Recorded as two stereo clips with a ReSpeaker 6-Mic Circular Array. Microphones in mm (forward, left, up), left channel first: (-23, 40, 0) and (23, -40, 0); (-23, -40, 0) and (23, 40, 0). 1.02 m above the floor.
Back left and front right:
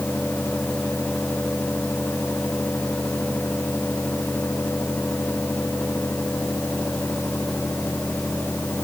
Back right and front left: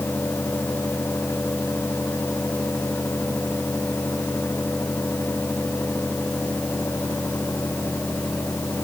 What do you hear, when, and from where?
Only background noise.